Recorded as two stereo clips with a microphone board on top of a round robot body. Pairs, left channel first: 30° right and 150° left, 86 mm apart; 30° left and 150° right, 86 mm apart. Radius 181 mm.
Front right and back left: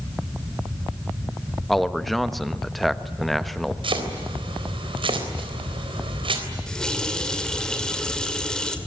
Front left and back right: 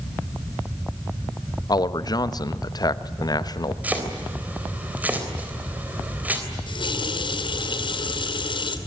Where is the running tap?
55° left, 2 m.